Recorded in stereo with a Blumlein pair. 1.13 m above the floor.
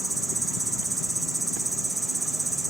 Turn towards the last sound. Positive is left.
turn(degrees=-5)